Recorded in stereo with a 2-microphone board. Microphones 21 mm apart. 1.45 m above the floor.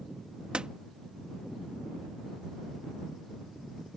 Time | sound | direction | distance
0.5 | a door slam | 55° right (ahead or behind) | ?